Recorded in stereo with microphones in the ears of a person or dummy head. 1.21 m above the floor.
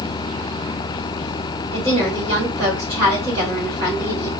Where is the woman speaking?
30° right (ahead or behind), 3 m.